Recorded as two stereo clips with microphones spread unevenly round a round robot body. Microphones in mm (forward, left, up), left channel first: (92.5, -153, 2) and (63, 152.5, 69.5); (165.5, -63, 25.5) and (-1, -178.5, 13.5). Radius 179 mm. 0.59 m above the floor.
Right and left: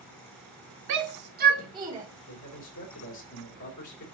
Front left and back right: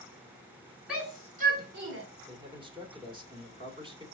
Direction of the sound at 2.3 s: 85° right.